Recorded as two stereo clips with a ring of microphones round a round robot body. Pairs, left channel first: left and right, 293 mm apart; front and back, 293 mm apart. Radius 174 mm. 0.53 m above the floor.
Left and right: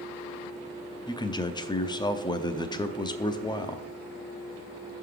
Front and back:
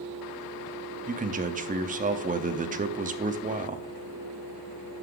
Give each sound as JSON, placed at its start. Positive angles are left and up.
{"t": 1.1, "sound": "a man speaking", "azimuth_deg": 150, "distance_m": 0.7}